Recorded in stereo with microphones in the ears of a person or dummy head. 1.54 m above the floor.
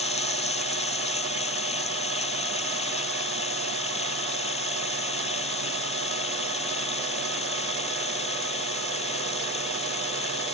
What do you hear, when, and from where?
0.0 s running water: 30° left (ahead or behind)